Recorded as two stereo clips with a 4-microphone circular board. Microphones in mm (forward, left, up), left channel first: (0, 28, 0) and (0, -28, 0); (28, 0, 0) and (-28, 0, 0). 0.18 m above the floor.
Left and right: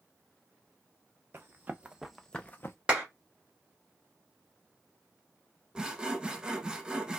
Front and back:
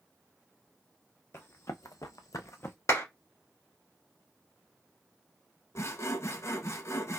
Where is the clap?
20° right, 1.8 m.